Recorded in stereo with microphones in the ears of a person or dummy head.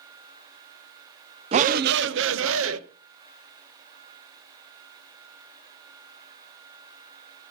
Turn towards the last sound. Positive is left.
turn(degrees=-75)  # may be behind; listen again after turning